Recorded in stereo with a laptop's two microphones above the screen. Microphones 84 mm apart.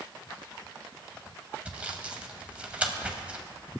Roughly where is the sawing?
Centre.